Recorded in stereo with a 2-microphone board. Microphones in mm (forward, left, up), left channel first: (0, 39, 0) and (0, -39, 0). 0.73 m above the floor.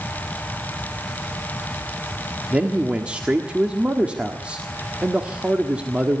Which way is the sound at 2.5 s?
15° right (ahead or behind).